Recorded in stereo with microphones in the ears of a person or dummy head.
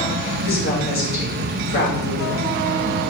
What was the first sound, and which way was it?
A woman speaking, 80° left.